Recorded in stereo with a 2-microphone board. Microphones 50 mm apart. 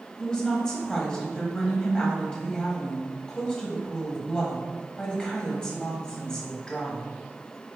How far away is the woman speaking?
About 1.2 m.